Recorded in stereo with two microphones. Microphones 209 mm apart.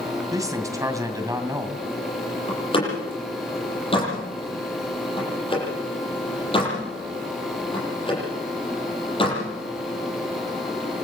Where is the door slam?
25° left (ahead or behind), 9 m.